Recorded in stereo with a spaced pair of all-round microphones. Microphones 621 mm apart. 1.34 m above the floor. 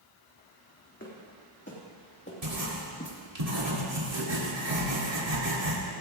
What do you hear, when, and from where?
1.0 s footsteps: 20° left (ahead or behind), 3.5 m; by 3.1 s 15° left (ahead or behind), 2 m
2.4 s writing: 70° right (ahead or behind), 2.5 m